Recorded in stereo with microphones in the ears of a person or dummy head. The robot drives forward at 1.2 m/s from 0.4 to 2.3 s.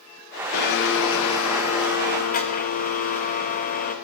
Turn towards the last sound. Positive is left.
turn(degrees=45)  # may be behind; listen again after turning